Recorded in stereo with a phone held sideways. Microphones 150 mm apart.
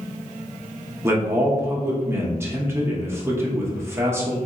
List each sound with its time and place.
1.0 s a man speaking: 15° right (ahead or behind), 0.7 m